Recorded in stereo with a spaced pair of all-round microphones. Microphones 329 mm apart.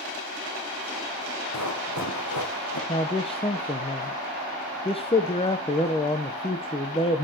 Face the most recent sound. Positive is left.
turn(degrees=15)  # may be behind; listen again after turning